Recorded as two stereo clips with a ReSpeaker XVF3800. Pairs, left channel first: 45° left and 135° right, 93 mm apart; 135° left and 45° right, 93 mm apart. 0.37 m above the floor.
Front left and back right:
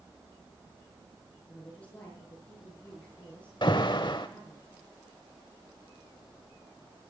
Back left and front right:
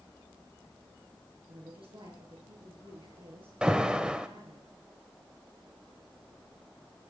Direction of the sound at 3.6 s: 35° left.